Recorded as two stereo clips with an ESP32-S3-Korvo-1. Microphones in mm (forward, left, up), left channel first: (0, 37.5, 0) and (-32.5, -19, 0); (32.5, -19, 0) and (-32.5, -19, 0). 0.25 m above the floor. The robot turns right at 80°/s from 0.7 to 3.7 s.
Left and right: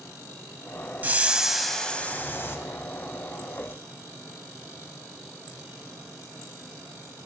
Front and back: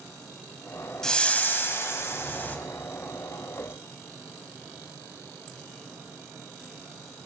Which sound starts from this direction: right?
A whoosh, at 1.0 s.